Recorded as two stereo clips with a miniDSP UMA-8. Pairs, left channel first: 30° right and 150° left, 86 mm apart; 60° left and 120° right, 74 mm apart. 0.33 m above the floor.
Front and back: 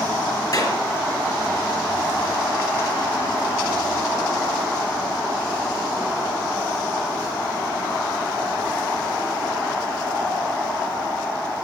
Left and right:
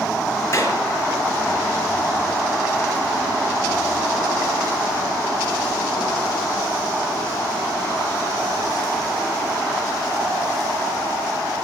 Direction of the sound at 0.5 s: 10° left.